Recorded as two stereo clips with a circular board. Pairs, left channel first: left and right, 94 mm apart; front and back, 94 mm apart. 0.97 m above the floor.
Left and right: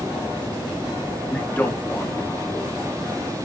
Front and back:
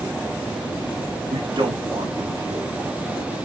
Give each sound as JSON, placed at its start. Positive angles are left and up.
{"t": 1.3, "sound": "a man speaking", "azimuth_deg": 165, "distance_m": 1.8}